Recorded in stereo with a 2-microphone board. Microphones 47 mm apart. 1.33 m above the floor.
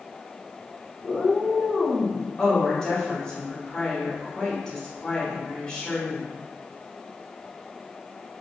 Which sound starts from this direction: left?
A cat meowing, at 1.0 s.